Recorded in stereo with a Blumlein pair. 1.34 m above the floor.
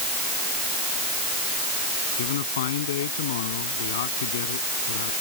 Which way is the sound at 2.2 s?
60° left.